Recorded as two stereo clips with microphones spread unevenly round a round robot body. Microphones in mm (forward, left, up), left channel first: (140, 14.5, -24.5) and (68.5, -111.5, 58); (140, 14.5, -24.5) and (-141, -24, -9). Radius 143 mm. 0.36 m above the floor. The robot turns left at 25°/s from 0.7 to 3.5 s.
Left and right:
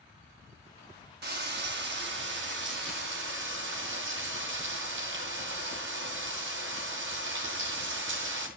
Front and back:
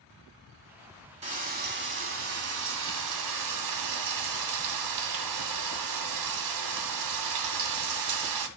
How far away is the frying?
About 2.5 m.